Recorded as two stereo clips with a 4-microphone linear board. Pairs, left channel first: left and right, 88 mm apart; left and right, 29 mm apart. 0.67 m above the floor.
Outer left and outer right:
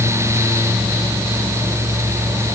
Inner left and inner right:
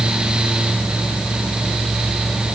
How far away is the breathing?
No breathing in this recording.